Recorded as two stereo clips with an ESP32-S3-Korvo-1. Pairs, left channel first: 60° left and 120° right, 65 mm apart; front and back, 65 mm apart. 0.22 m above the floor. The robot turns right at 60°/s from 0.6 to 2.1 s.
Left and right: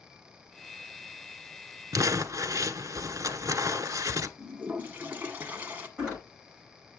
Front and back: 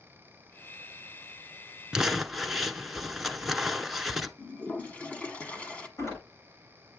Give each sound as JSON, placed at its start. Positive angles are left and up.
{"t": 1.9, "sound": "crumpling", "azimuth_deg": -105, "distance_m": 0.8}
{"t": 4.4, "sound": "a toilet flushing", "azimuth_deg": -65, "distance_m": 1.4}
{"t": 6.0, "sound": "a door slam", "azimuth_deg": -45, "distance_m": 8.5}